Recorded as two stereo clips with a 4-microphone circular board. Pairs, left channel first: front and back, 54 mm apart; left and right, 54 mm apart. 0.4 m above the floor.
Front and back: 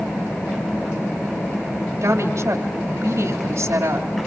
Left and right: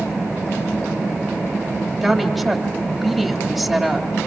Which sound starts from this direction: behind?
A woman speaking, at 2.0 s.